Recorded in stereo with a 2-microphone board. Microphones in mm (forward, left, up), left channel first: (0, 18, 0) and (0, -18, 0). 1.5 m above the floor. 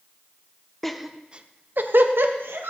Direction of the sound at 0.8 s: 5° left (ahead or behind).